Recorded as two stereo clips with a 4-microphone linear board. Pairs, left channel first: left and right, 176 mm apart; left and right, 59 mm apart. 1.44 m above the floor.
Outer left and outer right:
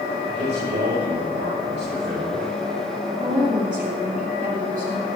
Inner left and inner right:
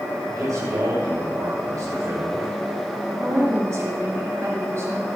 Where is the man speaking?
75° right (ahead or behind), 7 m.